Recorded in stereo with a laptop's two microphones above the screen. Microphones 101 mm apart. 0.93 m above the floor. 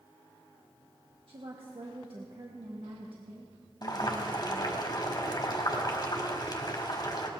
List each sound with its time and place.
1.3 s a woman speaking: 60° right (ahead or behind), 1.6 m
3.8 s boiling: 45° left (ahead or behind), 1.7 m